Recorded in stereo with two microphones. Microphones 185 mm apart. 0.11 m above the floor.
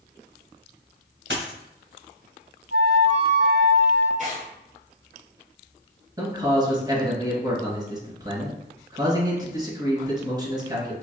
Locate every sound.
1.3 s a dropped coin: 85° right, 2.0 m
2.7 s a flute: 75° right (ahead or behind), 1.6 m
4.2 s tearing paper: 45° right (ahead or behind), 1.9 m
6.2 s a man speaking: 25° right (ahead or behind), 1.7 m